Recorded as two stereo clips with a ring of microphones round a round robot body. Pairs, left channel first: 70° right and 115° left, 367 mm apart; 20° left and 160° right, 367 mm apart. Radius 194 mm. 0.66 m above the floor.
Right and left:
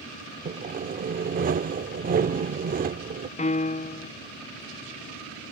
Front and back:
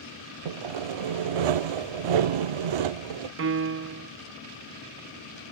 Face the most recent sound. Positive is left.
turn(degrees=-130)